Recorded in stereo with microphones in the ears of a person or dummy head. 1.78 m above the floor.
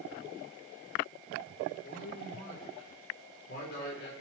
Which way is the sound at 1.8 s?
60° left (ahead or behind).